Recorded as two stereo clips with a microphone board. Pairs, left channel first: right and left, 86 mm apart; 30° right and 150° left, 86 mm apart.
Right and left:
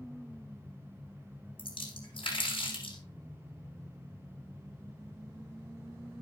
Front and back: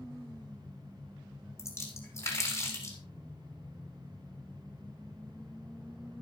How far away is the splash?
About 5.5 m.